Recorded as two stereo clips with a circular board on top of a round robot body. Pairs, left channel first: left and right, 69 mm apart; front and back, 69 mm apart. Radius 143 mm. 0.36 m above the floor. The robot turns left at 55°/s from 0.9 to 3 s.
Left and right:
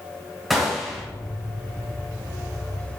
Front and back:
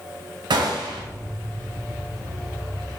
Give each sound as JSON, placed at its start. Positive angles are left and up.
{"t": 0.5, "sound": "a gunshot", "azimuth_deg": 180, "distance_m": 0.6}